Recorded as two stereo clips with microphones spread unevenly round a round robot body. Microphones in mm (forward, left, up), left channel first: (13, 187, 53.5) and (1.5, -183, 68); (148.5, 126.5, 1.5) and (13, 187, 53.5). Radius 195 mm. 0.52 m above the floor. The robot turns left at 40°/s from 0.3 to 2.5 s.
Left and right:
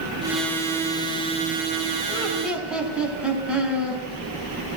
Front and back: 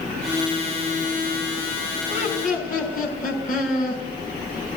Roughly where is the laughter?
Ahead.